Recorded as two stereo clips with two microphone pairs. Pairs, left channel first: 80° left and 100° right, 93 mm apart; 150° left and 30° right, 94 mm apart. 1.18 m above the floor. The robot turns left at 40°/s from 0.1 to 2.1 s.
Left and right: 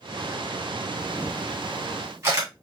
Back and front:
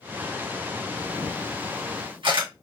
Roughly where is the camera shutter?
Ahead.